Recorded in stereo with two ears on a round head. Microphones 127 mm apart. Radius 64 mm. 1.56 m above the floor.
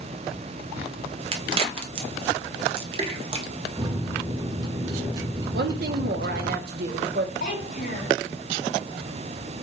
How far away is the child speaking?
About 1.8 m.